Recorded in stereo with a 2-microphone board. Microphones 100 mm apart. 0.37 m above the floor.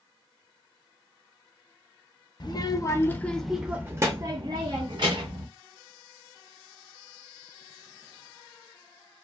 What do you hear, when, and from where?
2.4 s a child speaking: 45° left (ahead or behind), 0.8 m; by 5.5 s 60° right (ahead or behind), 1.2 m